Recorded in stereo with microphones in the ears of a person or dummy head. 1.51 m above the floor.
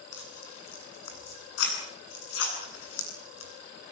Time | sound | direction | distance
0.1 | tearing paper | 80° left | 8.5 m